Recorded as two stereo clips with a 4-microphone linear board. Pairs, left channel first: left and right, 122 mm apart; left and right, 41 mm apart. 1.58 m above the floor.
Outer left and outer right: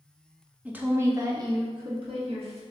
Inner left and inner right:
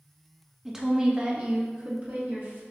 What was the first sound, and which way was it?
A woman speaking, 10° right (ahead or behind).